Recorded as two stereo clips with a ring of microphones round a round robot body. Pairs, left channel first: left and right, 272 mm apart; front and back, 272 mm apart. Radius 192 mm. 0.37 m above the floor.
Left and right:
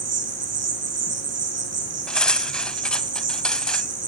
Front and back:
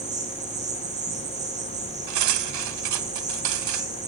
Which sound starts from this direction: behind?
Cutlery clinking, at 2.1 s.